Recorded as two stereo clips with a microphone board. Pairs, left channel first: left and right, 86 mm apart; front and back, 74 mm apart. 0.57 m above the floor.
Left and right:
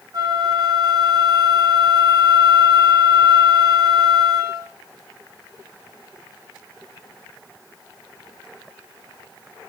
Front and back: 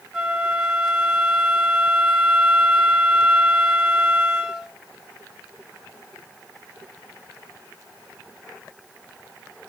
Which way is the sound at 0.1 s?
100° right.